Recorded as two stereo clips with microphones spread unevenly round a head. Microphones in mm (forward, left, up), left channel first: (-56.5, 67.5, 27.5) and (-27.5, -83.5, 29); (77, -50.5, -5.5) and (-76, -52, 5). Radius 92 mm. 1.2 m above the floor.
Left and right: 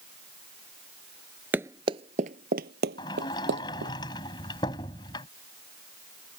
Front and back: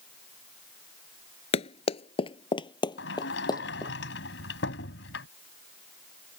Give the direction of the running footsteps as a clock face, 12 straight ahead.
12 o'clock.